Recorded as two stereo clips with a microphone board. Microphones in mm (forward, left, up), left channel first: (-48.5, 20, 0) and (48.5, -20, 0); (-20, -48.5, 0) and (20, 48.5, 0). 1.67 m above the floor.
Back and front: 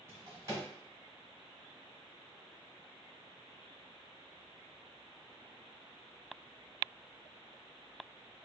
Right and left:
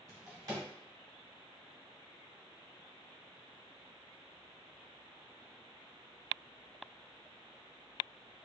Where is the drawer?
25° left, 2.0 m.